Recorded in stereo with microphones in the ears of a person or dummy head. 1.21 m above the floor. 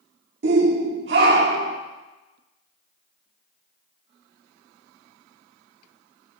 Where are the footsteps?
No footsteps in this recording.